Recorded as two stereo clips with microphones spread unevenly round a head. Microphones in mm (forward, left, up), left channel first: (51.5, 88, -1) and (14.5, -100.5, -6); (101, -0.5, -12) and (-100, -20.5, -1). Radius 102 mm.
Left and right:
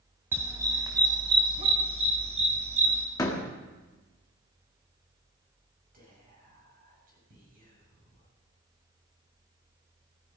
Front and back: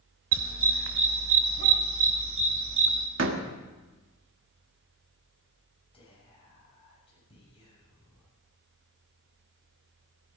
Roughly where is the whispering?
Ahead right.